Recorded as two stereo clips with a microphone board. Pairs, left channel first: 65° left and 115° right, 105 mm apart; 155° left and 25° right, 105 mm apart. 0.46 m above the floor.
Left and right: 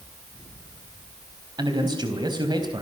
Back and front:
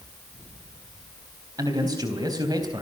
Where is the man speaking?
70° right, 3.5 m.